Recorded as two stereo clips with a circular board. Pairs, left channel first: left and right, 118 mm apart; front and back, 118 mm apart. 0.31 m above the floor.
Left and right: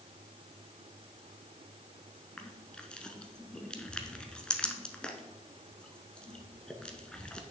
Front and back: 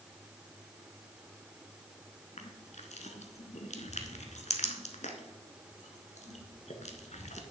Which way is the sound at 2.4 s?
10° left.